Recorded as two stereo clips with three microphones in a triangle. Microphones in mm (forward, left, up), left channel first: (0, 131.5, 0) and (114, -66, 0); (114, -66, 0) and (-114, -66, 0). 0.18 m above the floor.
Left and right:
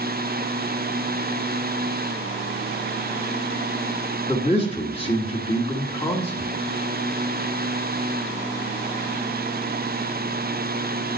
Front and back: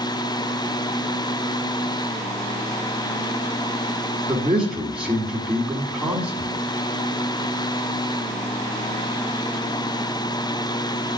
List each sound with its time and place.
4.3 s a man speaking: 100° left, 1.5 m